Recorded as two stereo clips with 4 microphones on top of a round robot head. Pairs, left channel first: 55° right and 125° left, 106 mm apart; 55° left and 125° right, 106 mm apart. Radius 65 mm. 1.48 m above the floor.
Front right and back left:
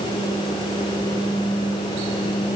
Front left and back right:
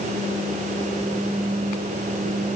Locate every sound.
Only background noise.